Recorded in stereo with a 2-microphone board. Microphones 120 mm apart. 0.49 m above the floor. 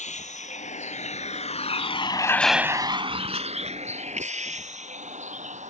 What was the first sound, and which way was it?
A vehicle, 80° left.